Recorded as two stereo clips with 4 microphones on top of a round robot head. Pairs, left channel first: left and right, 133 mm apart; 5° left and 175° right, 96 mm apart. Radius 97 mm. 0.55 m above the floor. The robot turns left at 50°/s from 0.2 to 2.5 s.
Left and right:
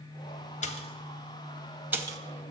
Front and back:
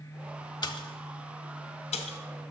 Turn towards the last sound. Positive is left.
turn(degrees=-40)